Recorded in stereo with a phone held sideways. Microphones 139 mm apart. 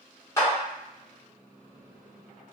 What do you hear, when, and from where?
0.4 s a clap: 20° left (ahead or behind), 1.3 m